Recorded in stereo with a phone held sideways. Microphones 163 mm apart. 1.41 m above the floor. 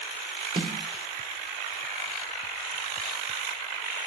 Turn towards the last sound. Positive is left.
turn(degrees=-45)  # may be behind; listen again after turning